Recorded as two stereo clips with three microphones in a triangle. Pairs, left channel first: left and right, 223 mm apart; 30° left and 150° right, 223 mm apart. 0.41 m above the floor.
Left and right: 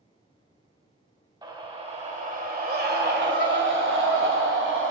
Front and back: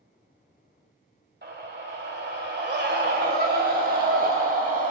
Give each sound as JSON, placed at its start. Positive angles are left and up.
{"t": 1.4, "sound": "a scream", "azimuth_deg": -155, "distance_m": 1.6}